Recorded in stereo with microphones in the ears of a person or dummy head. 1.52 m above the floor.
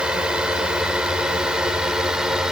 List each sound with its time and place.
0.0 s a drone: 10° right (ahead or behind); by 2.5 s 5° right (ahead or behind)